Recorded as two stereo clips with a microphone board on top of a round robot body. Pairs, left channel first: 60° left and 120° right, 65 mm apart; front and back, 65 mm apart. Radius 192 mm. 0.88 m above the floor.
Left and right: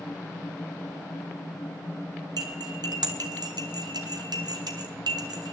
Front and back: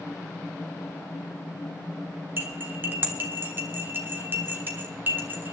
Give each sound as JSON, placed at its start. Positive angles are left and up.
{"t": 2.4, "sound": "cutlery clinking", "azimuth_deg": -120, "distance_m": 1.3}